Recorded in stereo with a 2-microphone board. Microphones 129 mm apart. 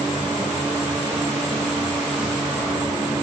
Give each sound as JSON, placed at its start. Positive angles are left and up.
{"t": 0.0, "sound": "an insect", "side_deg": -15, "distance_m": 1.8}